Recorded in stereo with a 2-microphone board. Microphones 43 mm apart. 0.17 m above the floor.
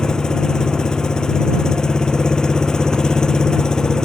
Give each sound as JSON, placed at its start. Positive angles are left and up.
{"t": 0.0, "sound": "an engine running", "side_deg": 15}